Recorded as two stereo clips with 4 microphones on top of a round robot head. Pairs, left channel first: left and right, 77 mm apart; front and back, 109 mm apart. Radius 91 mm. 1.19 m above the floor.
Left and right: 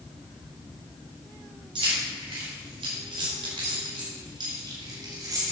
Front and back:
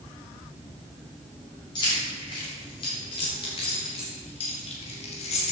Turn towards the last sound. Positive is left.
turn(degrees=-30)